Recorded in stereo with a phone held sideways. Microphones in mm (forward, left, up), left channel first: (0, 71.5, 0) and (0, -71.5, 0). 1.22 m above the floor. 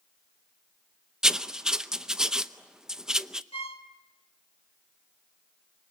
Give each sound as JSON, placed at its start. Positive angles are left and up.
{"t": 1.2, "sound": "writing", "side_deg": -5, "distance_m": 0.7}
{"t": 3.5, "sound": "a violin", "side_deg": 40, "distance_m": 1.9}